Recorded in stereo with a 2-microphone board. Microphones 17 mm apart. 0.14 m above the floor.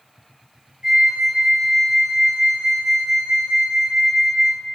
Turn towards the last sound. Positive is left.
turn(degrees=-60)  # may be behind; listen again after turning